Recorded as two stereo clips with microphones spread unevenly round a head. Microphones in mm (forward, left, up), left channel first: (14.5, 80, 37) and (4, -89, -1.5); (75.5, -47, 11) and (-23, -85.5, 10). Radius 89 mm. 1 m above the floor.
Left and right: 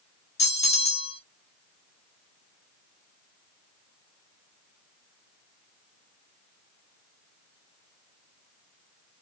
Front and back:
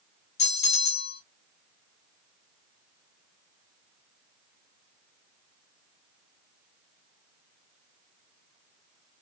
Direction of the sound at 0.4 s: 30° left.